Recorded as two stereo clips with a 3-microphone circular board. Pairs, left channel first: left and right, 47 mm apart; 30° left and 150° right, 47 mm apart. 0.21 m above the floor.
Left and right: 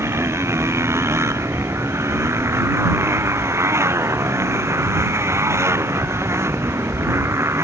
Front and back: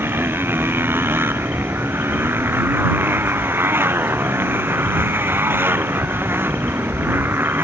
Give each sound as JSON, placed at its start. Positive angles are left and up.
{"t": 0.0, "sound": "a motorcycle", "azimuth_deg": -110}